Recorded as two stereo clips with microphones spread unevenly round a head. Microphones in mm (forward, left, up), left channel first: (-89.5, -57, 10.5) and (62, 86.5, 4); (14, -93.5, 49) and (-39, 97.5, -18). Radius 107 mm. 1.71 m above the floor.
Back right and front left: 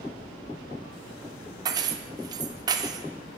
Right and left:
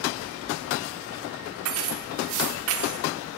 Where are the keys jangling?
110° left, 1.0 m.